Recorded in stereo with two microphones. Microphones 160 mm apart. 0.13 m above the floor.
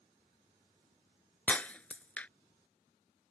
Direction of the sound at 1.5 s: 10° left (ahead or behind).